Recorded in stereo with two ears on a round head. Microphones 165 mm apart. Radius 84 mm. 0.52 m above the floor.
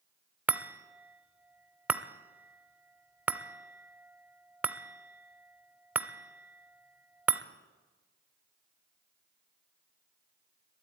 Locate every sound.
0.5 s a chime: 10° right (ahead or behind), 0.6 m